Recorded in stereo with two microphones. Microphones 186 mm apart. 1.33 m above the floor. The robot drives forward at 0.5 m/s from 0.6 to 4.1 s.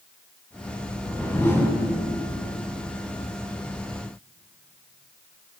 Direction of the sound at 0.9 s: 10° left (ahead or behind).